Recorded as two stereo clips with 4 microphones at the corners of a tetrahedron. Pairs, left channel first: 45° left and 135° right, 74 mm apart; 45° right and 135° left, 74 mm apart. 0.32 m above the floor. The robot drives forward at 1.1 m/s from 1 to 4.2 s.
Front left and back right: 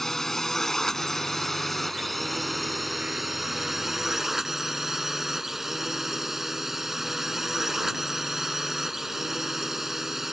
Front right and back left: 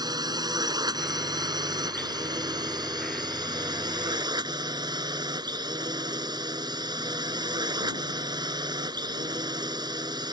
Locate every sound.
0.0 s a drone: 130° left; by 10.3 s 140° left